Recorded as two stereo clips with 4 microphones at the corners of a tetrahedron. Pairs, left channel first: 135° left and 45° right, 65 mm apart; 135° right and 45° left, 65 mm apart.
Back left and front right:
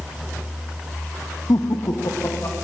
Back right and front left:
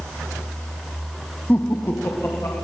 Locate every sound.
1.5 s laughter: 160° left, 0.8 m; by 2.5 s 175° left, 2.5 m